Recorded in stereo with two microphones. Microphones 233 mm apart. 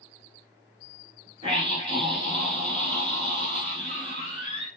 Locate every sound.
1.4 s a scream: 20° right (ahead or behind), 1.4 m